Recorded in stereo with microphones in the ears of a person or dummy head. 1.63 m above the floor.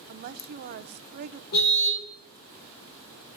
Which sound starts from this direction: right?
A woman speaking, at 0.1 s.